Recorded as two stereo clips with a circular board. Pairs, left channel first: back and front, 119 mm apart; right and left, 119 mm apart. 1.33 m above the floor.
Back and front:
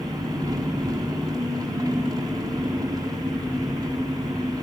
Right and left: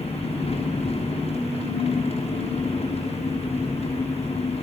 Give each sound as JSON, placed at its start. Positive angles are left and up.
{"t": 0.0, "sound": "an engine running", "azimuth_deg": -60, "distance_m": 6.5}